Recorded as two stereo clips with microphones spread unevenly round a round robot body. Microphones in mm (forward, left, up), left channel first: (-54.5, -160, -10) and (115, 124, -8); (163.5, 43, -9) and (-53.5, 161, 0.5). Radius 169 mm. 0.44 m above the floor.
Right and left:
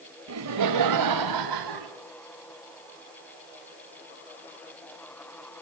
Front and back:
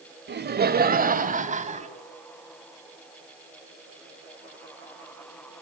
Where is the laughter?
105° left, 2 m; by 1.9 s 85° left, 3.5 m.